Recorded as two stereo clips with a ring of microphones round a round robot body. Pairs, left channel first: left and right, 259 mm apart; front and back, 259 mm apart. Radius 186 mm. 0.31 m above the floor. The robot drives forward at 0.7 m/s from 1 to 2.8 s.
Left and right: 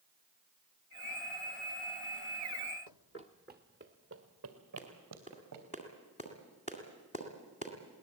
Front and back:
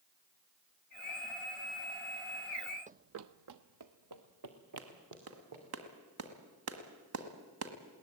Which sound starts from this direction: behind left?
Running footsteps, at 2.9 s.